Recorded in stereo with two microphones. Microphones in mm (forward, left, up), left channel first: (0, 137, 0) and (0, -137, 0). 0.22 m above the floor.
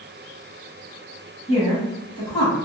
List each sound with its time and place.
1.5 s a woman speaking: 20° left (ahead or behind), 1.0 m; by 2.6 s 15° left (ahead or behind), 1.1 m